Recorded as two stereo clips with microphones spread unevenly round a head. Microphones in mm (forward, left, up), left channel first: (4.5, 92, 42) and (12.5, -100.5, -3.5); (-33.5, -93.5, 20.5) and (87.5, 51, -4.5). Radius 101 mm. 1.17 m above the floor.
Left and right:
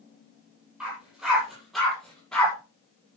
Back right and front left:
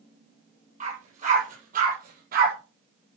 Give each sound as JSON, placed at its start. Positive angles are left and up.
{"t": 0.8, "sound": "a dog barking", "azimuth_deg": 0, "distance_m": 10.0}